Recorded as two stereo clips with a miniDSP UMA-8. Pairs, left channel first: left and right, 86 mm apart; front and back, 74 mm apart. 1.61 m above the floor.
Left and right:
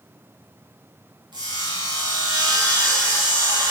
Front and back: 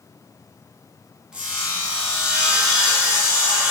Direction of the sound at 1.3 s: 105° right.